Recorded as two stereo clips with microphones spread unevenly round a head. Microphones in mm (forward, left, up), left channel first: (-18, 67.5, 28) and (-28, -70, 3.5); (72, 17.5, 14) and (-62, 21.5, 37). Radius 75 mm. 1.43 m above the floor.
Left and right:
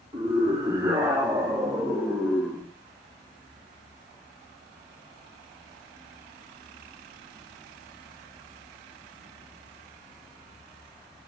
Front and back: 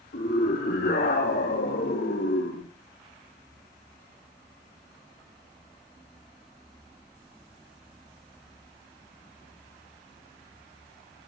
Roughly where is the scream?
Ahead right.